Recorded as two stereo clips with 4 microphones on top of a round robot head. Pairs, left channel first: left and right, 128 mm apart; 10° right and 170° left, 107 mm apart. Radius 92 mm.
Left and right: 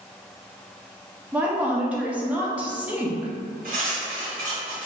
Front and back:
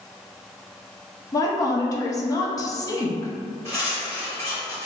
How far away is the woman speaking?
About 0.6 m.